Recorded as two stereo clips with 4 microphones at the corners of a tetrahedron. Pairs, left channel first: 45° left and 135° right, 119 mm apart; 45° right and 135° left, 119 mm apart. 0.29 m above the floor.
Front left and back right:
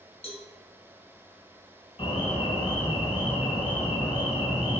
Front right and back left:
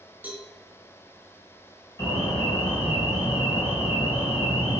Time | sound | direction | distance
0.2 | a cowbell | 60° left | 1.6 m
2.0 | an alarm | 15° left | 3.5 m